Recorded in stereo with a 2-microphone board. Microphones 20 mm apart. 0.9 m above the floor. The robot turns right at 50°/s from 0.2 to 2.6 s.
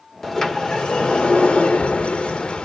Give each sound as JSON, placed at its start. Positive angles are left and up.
{"t": 0.2, "sound": "a sliding door", "azimuth_deg": 15, "distance_m": 1.3}